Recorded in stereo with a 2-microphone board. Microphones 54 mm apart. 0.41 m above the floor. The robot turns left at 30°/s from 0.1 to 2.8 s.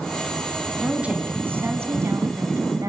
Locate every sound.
0.8 s a woman speaking: 15° right, 3 m; by 2.9 s 75° right, 3 m